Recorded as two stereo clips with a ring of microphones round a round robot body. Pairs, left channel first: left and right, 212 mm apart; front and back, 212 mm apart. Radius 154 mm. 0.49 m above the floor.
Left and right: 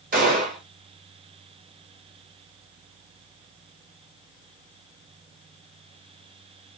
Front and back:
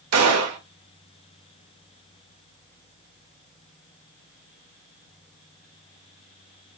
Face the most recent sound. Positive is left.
turn(degrees=-155)